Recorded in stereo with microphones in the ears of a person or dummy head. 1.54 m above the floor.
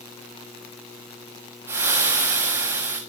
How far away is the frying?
About 3.5 m.